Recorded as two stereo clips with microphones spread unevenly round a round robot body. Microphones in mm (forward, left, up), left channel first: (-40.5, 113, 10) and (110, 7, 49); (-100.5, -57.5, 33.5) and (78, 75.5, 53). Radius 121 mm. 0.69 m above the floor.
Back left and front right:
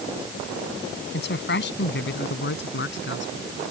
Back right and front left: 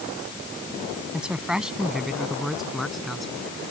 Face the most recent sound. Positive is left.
turn(degrees=125)